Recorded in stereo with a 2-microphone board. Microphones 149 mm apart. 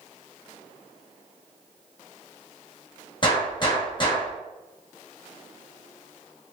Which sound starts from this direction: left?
A gunshot, at 3.2 s.